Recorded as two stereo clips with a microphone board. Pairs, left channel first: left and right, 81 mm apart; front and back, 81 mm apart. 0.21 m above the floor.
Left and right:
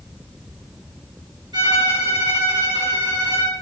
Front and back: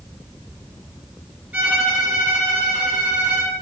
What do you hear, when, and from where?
1.5 s a violin: 110° right, 2 m